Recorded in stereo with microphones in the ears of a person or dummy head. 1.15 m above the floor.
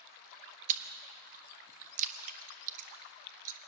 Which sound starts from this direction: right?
Chewing, at 0.7 s.